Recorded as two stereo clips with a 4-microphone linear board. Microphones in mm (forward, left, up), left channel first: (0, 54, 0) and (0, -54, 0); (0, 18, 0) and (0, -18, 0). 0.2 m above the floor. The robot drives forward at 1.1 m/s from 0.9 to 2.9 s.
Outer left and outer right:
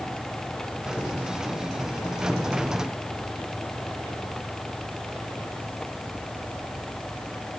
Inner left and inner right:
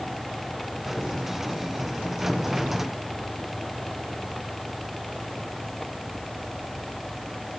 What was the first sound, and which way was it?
Only background noise.